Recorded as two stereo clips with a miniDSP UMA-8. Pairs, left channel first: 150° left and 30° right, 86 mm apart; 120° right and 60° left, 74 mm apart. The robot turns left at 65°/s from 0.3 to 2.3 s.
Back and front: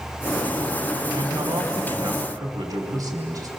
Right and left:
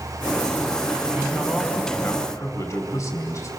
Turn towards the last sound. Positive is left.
turn(degrees=-70)